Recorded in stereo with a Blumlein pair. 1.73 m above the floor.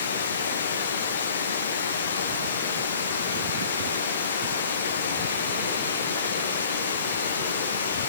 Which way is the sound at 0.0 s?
70° left.